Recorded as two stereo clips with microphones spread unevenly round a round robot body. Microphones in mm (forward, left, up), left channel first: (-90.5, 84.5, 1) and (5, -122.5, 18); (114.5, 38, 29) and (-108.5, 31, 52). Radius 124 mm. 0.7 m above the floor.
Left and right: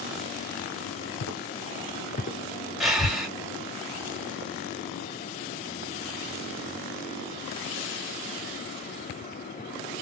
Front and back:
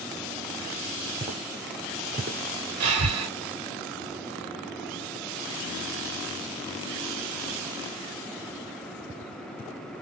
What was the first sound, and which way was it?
Footsteps, 110° left.